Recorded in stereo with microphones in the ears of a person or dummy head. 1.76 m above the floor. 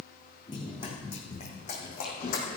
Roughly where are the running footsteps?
Left.